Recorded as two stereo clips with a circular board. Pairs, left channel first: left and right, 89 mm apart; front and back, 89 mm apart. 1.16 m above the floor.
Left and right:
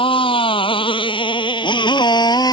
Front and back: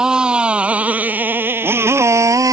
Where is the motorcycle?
100° left; by 2.5 s 130° left.